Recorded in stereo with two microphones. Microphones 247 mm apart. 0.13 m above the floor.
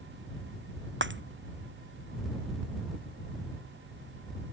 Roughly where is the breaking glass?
Right.